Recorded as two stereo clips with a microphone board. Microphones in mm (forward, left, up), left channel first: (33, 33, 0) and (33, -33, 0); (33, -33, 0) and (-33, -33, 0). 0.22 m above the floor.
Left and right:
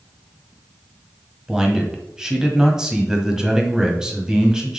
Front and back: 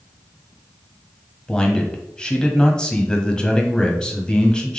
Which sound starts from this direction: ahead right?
A man speaking, at 1.5 s.